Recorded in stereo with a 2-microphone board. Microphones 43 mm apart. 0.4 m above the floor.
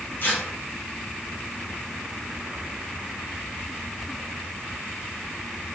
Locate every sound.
0.2 s tearing paper: 45° left (ahead or behind), 4.5 m